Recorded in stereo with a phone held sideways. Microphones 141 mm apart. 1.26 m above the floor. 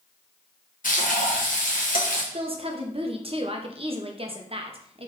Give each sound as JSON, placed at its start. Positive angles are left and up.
{"t": 0.8, "sound": "frying", "side_deg": 75, "distance_m": 1.1}
{"t": 2.3, "sound": "a woman speaking", "side_deg": -40, "distance_m": 0.8}